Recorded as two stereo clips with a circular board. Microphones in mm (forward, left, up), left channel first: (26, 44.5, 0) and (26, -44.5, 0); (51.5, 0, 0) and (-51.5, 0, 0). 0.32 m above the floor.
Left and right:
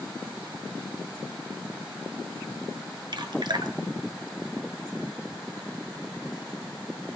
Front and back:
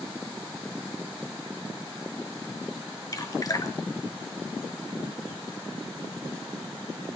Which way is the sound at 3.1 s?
55° right.